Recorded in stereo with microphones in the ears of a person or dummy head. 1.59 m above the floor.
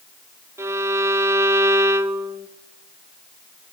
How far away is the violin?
About 0.8 m.